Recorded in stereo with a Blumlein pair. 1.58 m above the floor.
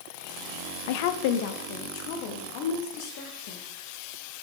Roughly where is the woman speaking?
Ahead left.